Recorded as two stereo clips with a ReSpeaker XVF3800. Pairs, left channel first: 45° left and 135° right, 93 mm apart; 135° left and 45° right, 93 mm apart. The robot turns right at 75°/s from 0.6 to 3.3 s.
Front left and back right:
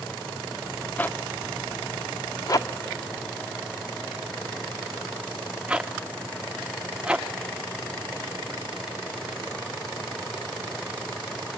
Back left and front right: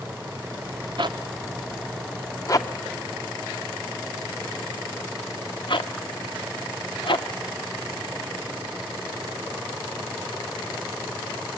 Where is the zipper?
25° right, 0.8 m; by 7.3 s 150° left, 0.8 m.